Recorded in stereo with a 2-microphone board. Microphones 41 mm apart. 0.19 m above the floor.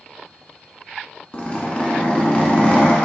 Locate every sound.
1.3 s a zipper: 35° left (ahead or behind), 1.1 m